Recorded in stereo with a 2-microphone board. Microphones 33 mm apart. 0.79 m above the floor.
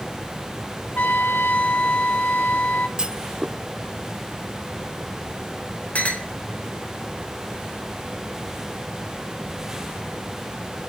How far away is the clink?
About 2 m.